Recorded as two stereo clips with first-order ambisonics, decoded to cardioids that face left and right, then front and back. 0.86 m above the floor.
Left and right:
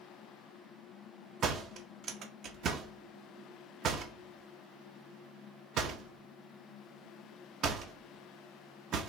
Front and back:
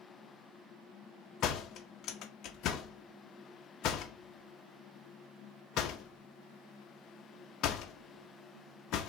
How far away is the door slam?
About 0.6 m.